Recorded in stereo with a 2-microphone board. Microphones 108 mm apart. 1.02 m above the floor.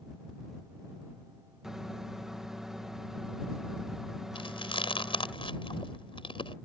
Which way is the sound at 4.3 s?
55° left (ahead or behind).